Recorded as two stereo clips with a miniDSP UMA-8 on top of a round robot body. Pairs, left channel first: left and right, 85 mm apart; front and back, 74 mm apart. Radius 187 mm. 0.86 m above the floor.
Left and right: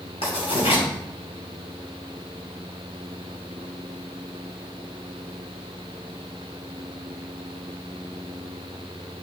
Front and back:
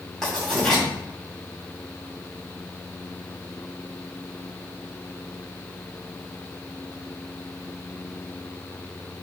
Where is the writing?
85° left, 2.5 m.